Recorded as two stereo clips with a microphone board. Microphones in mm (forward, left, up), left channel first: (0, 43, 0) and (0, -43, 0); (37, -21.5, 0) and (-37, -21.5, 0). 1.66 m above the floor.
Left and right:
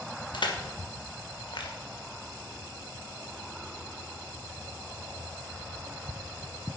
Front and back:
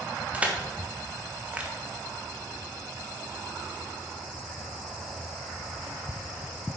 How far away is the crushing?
About 1.6 m.